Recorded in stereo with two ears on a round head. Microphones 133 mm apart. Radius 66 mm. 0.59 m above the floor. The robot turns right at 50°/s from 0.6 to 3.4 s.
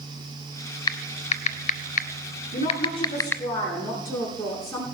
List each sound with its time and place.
0.9 s typing on a keyboard: 30° left (ahead or behind), 0.6 m; by 3.4 s 15° left (ahead or behind), 0.6 m
2.5 s a woman speaking: 120° left, 8 m; by 4.8 s 165° left, 8 m